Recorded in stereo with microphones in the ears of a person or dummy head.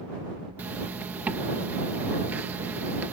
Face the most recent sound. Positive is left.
turn(degrees=-10)  # may be behind; listen again after turning